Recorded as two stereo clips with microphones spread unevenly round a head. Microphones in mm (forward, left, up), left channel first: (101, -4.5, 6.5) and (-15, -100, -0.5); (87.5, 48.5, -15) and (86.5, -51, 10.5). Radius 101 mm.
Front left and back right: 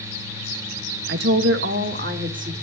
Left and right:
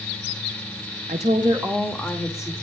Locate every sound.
1.1 s a woman speaking: 145° right, 1.5 m; by 2.5 s 160° left, 2.5 m